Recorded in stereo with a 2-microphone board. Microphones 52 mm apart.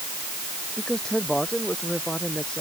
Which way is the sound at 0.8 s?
20° left (ahead or behind).